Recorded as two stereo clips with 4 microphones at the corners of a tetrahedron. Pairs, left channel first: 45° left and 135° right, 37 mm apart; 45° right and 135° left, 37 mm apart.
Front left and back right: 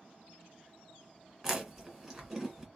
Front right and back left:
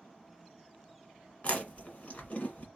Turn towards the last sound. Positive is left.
turn(degrees=-60)